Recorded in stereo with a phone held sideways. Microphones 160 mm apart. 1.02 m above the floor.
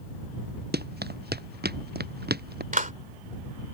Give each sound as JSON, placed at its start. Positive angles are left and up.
{"t": 0.7, "sound": "running footsteps", "side_deg": -85}
{"t": 2.7, "sound": "a clap", "side_deg": -55}